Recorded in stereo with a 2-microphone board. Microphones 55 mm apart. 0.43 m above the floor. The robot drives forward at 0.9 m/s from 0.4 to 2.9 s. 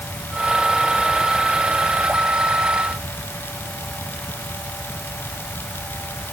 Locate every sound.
Only background noise.